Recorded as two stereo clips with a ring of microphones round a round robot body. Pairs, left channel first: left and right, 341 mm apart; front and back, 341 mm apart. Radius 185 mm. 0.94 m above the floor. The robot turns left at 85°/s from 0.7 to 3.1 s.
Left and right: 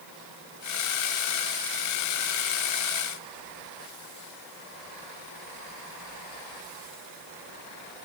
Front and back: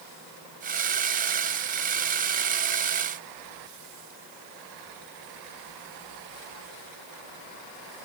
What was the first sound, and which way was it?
Only background noise.